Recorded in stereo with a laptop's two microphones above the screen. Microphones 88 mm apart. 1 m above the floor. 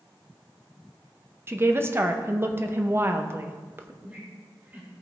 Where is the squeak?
25° right (ahead or behind), 3 m.